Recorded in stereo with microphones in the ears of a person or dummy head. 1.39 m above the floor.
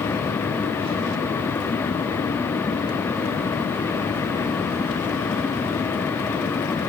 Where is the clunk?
I don't hear a clunk.